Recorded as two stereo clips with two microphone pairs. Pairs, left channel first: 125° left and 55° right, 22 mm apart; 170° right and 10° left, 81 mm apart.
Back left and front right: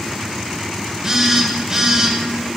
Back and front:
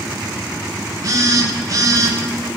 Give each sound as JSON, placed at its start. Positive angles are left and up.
{"t": 1.0, "sound": "a phone buzzing", "azimuth_deg": 10, "distance_m": 0.6}